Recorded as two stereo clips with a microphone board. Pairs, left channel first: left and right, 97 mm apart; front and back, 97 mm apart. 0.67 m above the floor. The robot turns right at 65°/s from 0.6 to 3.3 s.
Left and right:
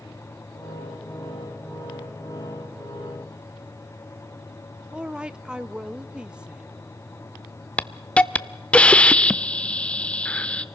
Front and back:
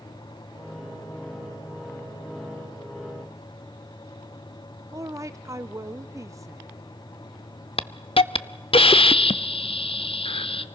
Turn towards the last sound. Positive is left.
turn(degrees=10)